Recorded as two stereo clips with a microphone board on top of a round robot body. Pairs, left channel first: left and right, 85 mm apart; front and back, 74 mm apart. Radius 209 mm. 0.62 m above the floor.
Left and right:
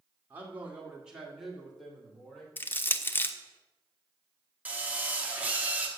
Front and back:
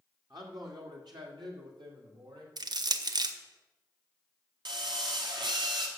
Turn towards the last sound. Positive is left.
turn(degrees=-165)